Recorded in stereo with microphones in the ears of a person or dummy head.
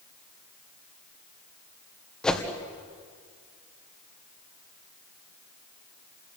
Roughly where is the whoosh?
Centre.